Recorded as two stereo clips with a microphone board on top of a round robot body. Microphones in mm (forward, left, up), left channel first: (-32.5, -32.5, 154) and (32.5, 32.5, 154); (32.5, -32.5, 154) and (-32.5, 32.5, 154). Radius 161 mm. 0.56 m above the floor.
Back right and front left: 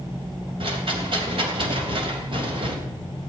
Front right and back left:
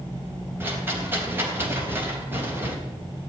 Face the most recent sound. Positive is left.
turn(degrees=70)